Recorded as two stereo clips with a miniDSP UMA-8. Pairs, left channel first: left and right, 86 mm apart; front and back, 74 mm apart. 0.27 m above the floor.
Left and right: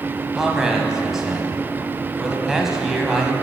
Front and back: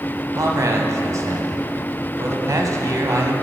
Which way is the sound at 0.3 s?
175° right.